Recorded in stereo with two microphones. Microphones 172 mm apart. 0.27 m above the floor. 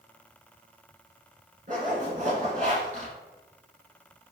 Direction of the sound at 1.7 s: 45° right (ahead or behind).